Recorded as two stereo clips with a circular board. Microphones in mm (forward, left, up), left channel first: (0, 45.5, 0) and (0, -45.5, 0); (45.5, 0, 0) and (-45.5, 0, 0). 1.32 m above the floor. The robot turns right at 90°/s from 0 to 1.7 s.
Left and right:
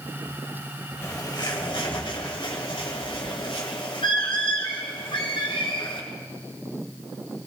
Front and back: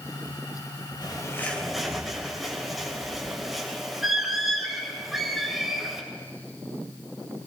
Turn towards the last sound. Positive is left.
turn(degrees=90)